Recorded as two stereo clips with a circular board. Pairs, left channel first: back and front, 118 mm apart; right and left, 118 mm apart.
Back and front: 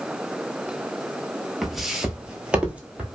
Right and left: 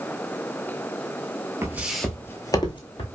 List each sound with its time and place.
1.6 s footsteps: 90° left, 0.5 m; by 3.1 s 75° right, 0.8 m